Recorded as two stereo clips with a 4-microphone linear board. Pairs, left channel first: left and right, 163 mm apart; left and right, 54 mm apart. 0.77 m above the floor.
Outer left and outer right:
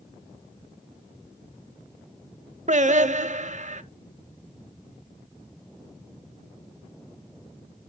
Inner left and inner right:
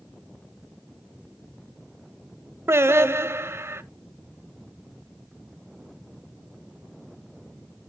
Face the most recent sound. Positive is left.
turn(degrees=-55)  # may be behind; listen again after turning